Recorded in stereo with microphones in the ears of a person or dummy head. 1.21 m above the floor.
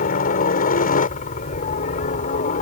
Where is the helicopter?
45° left (ahead or behind); by 2.6 s 40° left (ahead or behind).